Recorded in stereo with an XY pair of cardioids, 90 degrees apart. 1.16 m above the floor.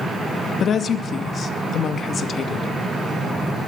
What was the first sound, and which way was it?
A woman speaking, 60° left.